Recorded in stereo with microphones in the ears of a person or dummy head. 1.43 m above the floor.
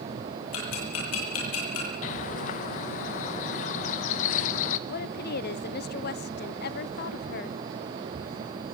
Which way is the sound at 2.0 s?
40° left (ahead or behind).